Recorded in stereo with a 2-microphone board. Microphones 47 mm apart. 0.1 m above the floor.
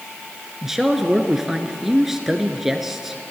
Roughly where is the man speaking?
Centre.